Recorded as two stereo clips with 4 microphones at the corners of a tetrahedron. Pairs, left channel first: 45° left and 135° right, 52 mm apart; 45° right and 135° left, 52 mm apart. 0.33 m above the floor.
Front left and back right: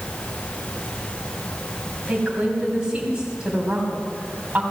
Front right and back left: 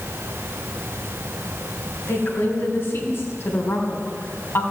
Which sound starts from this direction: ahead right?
A woman speaking, at 2.1 s.